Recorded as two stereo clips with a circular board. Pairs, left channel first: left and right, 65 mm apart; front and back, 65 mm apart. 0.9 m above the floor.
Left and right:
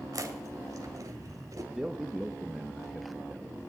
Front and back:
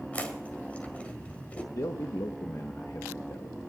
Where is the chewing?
65° right, 1.8 m.